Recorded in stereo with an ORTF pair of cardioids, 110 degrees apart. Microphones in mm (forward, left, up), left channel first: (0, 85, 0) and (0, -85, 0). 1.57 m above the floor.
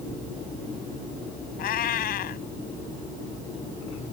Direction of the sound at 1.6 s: 65° left.